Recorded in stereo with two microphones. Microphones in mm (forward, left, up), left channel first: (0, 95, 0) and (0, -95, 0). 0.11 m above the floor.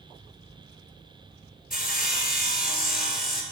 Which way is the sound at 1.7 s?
55° left (ahead or behind).